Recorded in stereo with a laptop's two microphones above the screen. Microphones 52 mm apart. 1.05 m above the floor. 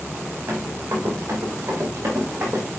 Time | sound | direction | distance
0.5 | running footsteps | 70° right (ahead or behind) | 4 m